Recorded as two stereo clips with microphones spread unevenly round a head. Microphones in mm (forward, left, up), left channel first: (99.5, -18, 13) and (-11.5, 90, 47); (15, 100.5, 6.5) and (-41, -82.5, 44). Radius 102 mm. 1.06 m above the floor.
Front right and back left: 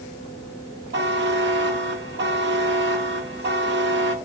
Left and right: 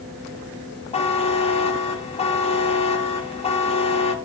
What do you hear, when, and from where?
0.9 s a buzzer: 130° left, 1.3 m